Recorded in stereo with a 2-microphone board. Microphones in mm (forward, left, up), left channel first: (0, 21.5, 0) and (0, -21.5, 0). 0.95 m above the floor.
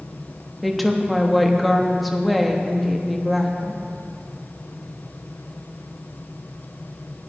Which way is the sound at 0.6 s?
Centre (ahead or behind).